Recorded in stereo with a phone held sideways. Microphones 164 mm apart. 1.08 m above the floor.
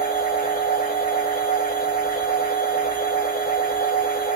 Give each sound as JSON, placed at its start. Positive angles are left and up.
{"t": 0.0, "sound": "a machine running", "side_deg": 60, "distance_m": 1.5}